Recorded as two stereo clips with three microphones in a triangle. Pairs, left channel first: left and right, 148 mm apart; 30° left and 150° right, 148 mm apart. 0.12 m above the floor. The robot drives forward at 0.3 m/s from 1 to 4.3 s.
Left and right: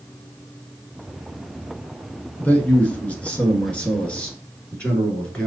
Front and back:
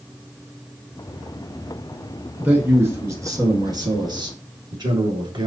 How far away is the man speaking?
About 1.1 m.